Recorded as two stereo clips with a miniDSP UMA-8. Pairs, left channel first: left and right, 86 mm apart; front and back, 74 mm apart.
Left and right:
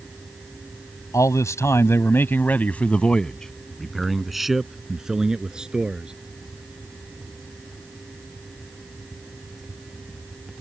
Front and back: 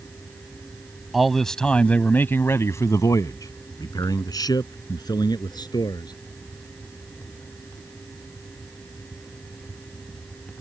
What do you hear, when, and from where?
1.1 s a man speaking: 95° left; by 6.1 s 10° right